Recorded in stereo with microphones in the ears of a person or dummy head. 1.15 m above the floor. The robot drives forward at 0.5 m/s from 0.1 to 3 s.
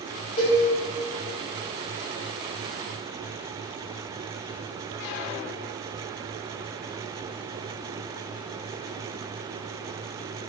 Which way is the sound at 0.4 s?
40° left (ahead or behind).